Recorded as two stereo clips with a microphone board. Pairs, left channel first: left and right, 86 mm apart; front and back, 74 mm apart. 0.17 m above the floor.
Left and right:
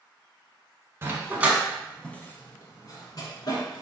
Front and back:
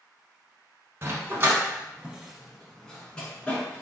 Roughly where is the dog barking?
Behind right.